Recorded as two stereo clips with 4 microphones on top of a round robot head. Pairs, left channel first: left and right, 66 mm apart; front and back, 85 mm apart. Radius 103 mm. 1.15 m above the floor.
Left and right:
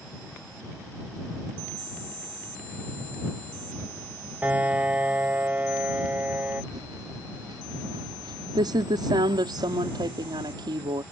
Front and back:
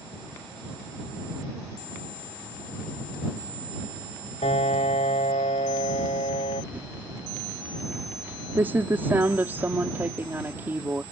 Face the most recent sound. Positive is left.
turn(degrees=-110)